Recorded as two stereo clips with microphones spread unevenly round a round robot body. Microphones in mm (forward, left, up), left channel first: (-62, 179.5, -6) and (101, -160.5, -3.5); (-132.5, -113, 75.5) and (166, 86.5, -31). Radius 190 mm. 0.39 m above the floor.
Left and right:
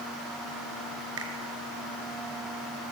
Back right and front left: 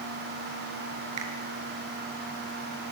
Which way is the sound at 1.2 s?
10° right.